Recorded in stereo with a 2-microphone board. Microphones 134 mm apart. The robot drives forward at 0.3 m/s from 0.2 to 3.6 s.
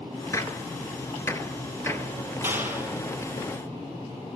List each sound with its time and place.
0.3 s a gunshot: 25° left (ahead or behind), 1.4 m; by 2.3 s 15° left (ahead or behind), 1.9 m
2.4 s a clap: 15° right (ahead or behind), 2.5 m